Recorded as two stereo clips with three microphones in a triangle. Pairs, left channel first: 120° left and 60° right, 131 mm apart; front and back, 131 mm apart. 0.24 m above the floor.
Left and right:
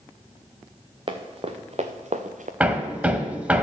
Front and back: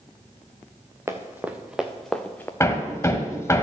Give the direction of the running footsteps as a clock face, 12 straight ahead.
4 o'clock.